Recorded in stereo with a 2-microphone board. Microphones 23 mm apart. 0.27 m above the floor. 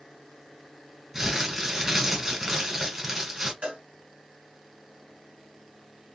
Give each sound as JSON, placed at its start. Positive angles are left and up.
{"t": 1.1, "sound": "crumpling", "side_deg": -20, "distance_m": 1.9}
{"t": 3.6, "sound": "a cowbell", "side_deg": -55, "distance_m": 1.7}